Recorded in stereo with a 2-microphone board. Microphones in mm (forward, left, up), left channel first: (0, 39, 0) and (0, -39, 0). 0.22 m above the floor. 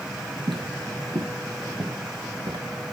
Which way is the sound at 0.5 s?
90° right.